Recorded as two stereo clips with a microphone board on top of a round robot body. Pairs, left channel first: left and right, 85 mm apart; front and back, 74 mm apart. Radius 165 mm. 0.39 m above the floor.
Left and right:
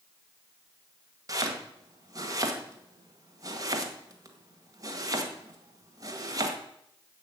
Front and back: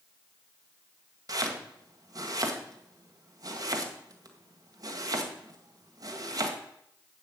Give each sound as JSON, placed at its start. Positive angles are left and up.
{"t": 1.3, "sound": "chopping", "azimuth_deg": -140, "distance_m": 2.0}